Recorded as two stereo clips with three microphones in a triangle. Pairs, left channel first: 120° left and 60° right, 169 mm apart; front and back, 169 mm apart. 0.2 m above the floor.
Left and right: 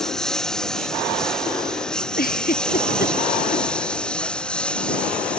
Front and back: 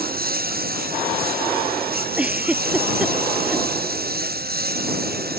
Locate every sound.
0.0 s a lawn mower: 155° right
2.2 s a giggle: 95° left